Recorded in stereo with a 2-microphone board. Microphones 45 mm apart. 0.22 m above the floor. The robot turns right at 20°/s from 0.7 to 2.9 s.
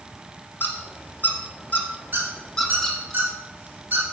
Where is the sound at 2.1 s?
45° right (ahead or behind), 2.5 m; by 4.1 s 55° right (ahead or behind), 2.5 m.